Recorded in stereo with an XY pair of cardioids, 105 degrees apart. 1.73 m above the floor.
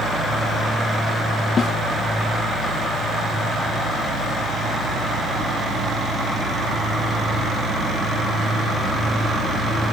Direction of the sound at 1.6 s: 50° left.